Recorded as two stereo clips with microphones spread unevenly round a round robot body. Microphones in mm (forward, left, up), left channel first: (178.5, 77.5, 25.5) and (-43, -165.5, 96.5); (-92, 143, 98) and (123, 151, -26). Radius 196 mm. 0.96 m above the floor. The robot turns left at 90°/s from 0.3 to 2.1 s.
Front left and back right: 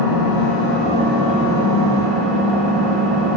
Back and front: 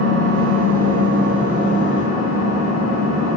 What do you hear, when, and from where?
0.0 s an engine running: 30° left, 6.5 m; by 3.4 s 135° right, 6.5 m